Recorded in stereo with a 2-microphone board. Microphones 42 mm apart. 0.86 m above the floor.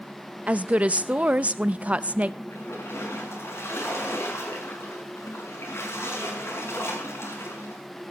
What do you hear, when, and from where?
0.5 s a woman speaking: 30° right (ahead or behind), 0.6 m
2.5 s a splash: 80° left, 6 m